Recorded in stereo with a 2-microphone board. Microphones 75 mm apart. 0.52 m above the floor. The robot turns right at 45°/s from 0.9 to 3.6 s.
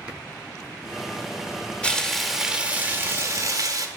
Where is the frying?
160° left, 0.9 m; by 3.9 s 120° right, 0.9 m.